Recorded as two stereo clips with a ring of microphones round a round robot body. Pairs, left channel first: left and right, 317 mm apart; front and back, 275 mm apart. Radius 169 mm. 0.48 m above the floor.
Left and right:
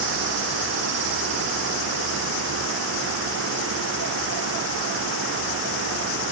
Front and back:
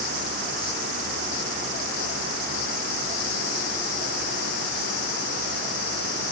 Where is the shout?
No shout in this recording.